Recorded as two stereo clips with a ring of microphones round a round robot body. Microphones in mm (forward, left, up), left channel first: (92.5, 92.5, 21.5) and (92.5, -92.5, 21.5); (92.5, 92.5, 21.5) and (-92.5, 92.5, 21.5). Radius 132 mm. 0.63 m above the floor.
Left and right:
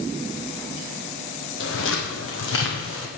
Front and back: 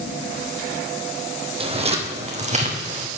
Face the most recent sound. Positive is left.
turn(degrees=130)